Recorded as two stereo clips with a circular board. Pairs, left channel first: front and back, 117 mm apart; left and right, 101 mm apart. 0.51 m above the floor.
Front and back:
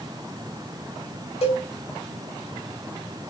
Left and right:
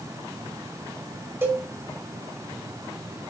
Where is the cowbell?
25° right, 1.3 m.